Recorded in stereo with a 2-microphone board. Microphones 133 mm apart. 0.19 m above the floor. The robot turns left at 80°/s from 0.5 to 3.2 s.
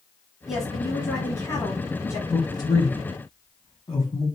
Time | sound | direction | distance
0.5 | a woman speaking | 175° right | 1.2 m
2.3 | a man speaking | 25° left (ahead or behind) | 1.1 m